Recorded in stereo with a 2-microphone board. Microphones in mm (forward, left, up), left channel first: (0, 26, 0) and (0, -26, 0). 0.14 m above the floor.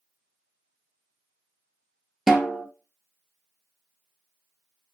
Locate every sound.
2.3 s a snare drum: 5° right (ahead or behind), 0.6 m